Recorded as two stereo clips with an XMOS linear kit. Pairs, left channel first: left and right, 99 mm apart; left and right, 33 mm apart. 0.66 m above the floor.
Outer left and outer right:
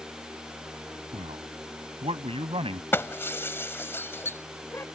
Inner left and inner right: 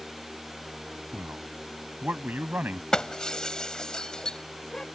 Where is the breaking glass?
25° left (ahead or behind).